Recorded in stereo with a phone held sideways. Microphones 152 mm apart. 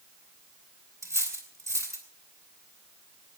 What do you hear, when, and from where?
1.0 s cutlery clinking: 20° right (ahead or behind), 3.5 m